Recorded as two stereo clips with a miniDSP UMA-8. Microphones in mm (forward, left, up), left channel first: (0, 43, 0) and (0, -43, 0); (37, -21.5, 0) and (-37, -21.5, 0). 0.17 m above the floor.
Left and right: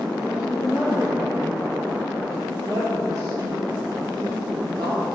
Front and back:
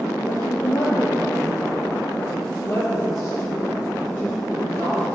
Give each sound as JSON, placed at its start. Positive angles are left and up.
{"t": 0.3, "sound": "a woman speaking", "azimuth_deg": -10, "distance_m": 4.0}